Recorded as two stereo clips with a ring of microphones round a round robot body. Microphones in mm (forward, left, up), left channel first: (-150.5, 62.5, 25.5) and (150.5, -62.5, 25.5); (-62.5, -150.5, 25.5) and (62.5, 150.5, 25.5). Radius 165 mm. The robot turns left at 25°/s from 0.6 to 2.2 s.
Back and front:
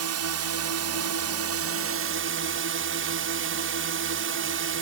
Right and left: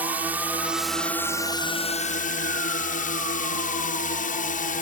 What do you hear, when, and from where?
0.0 s a drone: 15° right; by 4.8 s 55° right